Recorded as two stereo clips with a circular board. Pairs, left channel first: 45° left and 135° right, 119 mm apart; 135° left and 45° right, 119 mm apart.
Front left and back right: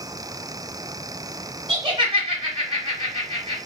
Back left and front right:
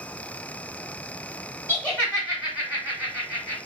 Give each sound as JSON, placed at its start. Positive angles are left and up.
{"t": 1.7, "sound": "laughter", "azimuth_deg": -150, "distance_m": 1.4}